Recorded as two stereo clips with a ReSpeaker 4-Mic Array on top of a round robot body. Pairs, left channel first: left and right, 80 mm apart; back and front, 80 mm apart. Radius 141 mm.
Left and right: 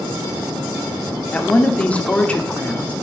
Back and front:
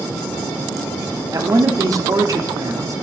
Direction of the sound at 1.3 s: 20° left.